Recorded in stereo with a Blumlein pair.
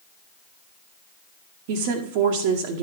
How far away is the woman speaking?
About 1.1 m.